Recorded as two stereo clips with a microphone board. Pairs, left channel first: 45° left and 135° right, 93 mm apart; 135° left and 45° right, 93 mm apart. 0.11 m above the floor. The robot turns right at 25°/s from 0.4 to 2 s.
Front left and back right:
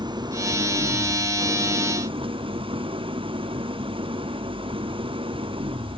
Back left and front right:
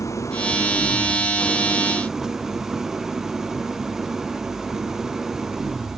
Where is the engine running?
170° right; by 6.0 s 130° right.